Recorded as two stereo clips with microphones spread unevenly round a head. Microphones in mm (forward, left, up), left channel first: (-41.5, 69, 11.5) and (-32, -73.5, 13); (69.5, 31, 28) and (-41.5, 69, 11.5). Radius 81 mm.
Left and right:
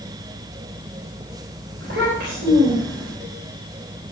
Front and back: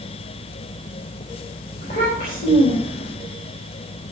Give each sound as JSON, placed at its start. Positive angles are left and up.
{"t": 1.8, "sound": "a child speaking", "azimuth_deg": -60, "distance_m": 3.5}